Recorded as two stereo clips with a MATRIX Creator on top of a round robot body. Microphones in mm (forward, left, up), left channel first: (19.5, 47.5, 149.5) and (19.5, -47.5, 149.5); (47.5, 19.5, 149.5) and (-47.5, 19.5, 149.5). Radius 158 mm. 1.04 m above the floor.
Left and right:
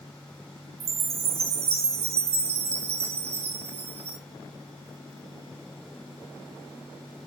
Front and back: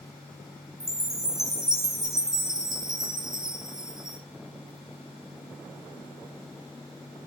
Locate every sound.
0.8 s a chime: 95° right, 1.3 m